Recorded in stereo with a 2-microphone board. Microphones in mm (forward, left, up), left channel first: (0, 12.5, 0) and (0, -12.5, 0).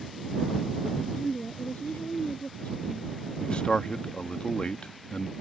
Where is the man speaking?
40° left (ahead or behind).